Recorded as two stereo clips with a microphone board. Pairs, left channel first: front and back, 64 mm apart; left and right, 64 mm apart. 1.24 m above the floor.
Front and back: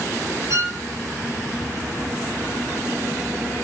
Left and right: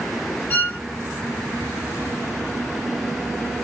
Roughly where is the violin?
Behind left.